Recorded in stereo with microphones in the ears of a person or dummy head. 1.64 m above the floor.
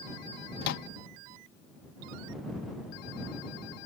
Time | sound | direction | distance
0.6 | a microwave | 65° left (ahead or behind) | ?